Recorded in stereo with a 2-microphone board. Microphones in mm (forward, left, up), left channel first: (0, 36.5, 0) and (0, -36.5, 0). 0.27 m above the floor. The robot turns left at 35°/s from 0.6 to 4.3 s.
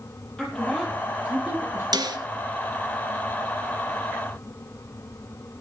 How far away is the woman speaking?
About 8.5 m.